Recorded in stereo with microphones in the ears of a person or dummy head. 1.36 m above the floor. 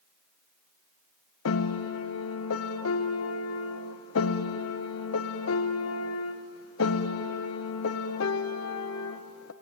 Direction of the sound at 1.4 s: 75° left (ahead or behind).